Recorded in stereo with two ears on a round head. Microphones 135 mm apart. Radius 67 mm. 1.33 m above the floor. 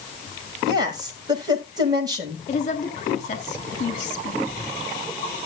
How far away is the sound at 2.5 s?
About 3 m.